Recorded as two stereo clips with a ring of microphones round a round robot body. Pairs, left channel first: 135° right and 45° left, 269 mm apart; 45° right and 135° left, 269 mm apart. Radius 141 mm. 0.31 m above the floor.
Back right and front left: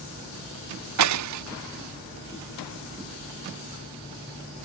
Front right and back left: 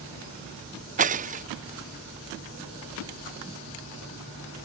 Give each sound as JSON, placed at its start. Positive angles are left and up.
{"t": 1.0, "sound": "breaking glass", "azimuth_deg": 70}